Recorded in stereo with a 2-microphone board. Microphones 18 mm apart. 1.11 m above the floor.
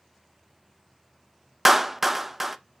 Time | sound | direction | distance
1.6 | a clap | 10° right (ahead or behind) | 0.5 m